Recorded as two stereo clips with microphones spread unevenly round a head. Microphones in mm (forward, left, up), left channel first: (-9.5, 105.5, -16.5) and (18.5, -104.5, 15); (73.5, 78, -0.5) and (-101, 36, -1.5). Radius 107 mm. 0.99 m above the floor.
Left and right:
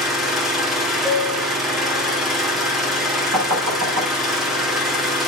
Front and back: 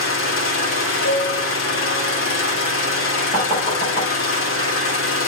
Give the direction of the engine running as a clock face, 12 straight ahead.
12 o'clock.